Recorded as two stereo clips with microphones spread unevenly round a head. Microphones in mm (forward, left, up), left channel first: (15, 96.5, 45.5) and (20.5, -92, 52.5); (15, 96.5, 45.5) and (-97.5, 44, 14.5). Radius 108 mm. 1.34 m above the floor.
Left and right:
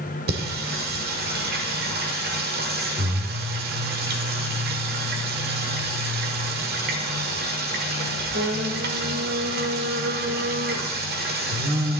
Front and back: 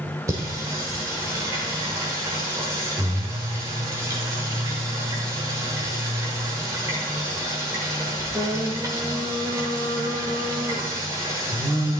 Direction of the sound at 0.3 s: 70° right.